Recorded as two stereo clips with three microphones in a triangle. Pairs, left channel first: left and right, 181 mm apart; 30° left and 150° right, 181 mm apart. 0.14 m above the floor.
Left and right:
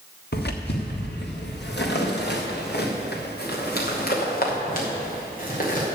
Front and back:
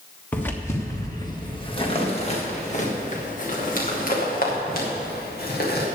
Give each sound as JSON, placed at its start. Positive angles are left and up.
{"t": 0.3, "sound": "footsteps", "azimuth_deg": 110, "distance_m": 2.5}